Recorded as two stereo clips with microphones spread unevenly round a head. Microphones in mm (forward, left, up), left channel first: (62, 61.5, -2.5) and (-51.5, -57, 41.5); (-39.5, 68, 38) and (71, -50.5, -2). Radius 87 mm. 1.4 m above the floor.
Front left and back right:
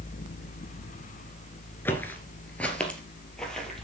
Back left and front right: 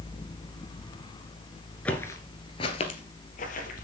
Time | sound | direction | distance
1.9 | footsteps | 145° left | 1.4 m